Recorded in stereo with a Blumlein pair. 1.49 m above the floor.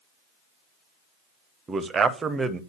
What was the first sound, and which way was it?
A man speaking, 20° right.